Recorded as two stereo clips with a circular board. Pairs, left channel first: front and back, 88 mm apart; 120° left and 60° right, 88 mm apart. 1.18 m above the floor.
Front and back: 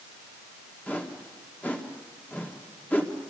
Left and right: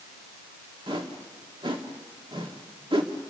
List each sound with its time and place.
0.9 s a whoosh: 70° right, 1.8 m